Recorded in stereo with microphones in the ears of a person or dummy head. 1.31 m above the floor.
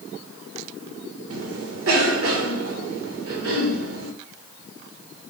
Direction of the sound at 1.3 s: 75° right (ahead or behind).